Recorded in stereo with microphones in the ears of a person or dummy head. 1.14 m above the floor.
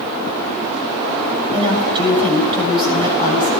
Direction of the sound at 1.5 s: 30° right (ahead or behind).